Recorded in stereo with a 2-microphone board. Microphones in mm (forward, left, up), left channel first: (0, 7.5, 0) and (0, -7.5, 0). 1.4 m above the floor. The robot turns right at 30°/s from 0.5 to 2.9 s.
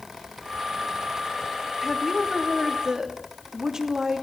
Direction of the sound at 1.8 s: 170° right.